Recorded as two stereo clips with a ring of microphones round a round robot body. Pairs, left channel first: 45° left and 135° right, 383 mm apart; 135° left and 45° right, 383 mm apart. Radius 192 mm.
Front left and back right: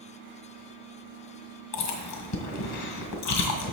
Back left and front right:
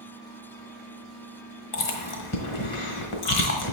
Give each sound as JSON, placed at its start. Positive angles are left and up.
{"t": 1.7, "sound": "chewing", "azimuth_deg": 90, "distance_m": 1.3}